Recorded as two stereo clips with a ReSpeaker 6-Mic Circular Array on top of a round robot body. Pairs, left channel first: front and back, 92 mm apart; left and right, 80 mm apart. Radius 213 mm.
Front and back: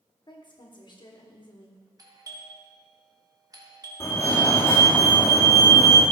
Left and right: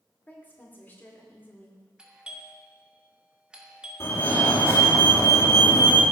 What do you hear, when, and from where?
0.3 s a woman speaking: 25° left, 2 m
2.0 s a doorbell: 165° right, 1.8 m
4.0 s a fire alarm: 50° left, 2.5 m